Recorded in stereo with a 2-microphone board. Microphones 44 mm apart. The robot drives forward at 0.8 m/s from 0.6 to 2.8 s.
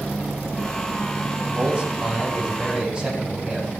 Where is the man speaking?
30° right (ahead or behind), 6.5 m; by 3.7 s 25° right (ahead or behind), 7.5 m.